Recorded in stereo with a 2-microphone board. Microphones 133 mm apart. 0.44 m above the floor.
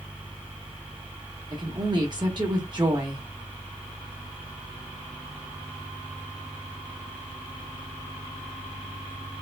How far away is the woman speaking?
About 1.0 m.